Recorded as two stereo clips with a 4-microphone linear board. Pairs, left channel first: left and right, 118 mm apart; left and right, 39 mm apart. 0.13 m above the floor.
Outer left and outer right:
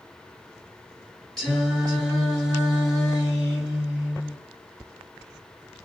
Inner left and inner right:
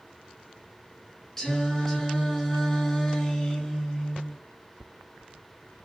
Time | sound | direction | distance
1.4 | singing | 5° left (ahead or behind) | 1.7 m